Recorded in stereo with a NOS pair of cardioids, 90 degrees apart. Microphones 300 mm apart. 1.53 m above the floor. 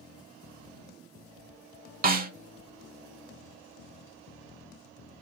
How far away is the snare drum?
About 0.6 m.